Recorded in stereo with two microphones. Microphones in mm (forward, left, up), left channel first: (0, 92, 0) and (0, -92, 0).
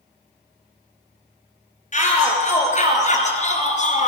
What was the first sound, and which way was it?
A shout, 40° left (ahead or behind).